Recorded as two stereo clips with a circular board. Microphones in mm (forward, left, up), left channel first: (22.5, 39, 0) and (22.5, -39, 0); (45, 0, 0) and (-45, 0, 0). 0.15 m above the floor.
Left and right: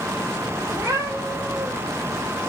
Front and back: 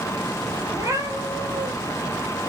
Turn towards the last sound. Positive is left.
turn(degrees=-155)